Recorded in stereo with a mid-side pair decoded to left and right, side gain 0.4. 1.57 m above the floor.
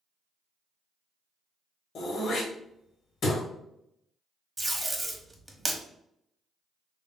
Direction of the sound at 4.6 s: 20° right.